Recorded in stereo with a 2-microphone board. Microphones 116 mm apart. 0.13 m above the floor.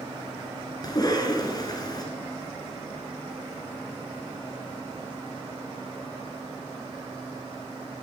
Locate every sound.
0.8 s a cough: 35° left (ahead or behind), 1.6 m